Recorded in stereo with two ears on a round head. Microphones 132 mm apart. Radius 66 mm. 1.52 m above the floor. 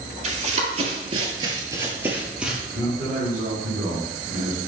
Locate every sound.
0.2 s running footsteps: 45° right (ahead or behind), 2.5 m; by 2.6 s 5° right (ahead or behind), 2.5 m
2.7 s a man speaking: 15° right (ahead or behind), 3.5 m